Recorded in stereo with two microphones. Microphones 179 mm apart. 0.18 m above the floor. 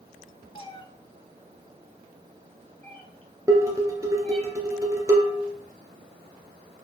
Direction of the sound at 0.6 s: 30° left (ahead or behind).